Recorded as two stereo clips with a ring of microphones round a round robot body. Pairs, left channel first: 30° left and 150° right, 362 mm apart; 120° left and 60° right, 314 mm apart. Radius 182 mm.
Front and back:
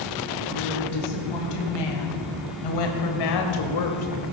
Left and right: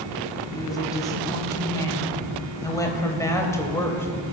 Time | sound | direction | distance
0.5 | a woman speaking | 40° left | 3.5 m